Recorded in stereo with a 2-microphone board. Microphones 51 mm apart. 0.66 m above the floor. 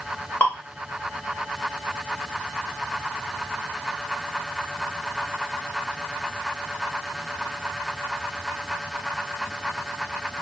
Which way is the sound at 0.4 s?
40° left (ahead or behind).